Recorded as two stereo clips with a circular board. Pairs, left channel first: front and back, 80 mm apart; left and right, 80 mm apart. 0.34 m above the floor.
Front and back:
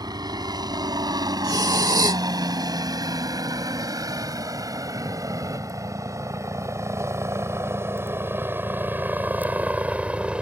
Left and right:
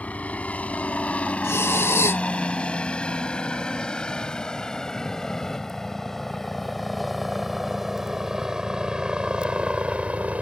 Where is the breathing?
145° left.